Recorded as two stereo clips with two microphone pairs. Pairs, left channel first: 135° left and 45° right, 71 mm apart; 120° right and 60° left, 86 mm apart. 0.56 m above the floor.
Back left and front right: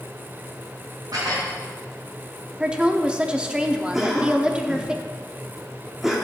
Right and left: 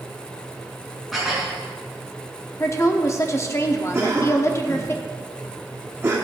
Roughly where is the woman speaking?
Behind right.